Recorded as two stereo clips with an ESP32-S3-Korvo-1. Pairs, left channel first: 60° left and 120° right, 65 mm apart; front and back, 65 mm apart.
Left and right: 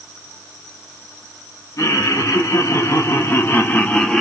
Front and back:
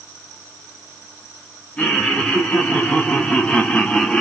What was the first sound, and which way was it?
Laughter, 70° left.